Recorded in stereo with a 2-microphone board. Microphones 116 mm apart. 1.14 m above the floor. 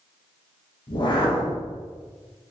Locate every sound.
0.9 s a whoosh: 40° left (ahead or behind), 0.7 m